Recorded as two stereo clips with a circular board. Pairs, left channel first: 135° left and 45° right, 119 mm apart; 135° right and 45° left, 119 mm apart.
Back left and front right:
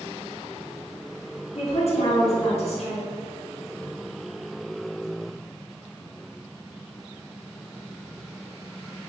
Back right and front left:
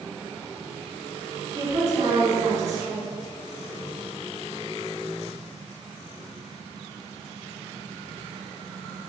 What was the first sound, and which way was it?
A woman speaking, 110° left.